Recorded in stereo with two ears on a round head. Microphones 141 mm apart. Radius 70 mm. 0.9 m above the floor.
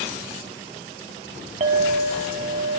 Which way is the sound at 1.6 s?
45° right (ahead or behind).